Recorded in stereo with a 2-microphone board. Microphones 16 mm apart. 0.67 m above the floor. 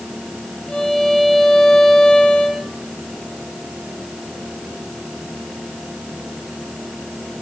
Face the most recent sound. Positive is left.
turn(degrees=60)  # may be behind; listen again after turning